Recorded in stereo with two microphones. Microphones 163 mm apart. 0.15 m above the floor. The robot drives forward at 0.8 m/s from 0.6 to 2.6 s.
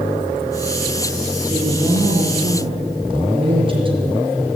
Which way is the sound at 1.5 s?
25° right (ahead or behind).